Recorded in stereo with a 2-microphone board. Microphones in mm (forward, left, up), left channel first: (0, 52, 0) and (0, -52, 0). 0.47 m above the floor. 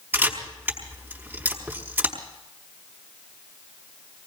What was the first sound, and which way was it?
A camera shutter, 20° right (ahead or behind).